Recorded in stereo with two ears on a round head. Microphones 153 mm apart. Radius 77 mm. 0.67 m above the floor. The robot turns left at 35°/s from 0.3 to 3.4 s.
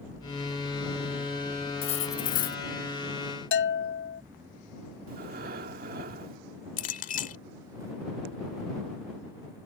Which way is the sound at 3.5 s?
70° left (ahead or behind).